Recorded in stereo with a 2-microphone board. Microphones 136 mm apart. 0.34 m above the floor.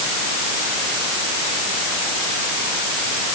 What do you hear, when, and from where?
Only background noise.